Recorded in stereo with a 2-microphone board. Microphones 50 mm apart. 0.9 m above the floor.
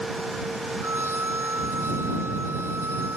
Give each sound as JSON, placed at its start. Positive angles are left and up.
{"t": 0.8, "sound": "a violin", "side_deg": -55}